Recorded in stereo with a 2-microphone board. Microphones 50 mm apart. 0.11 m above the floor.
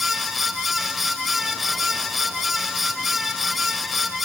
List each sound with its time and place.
Only background noise.